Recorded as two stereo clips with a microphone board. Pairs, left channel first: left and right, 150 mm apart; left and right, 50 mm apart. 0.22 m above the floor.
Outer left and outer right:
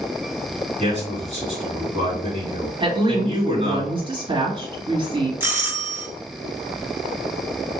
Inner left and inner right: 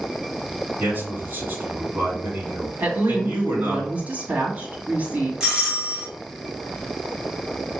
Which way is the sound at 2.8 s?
35° right (ahead or behind).